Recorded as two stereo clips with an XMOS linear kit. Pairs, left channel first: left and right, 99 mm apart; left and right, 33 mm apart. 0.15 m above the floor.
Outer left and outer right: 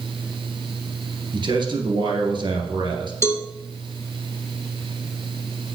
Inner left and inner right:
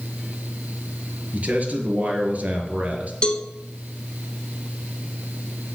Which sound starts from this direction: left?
A cowbell, at 3.2 s.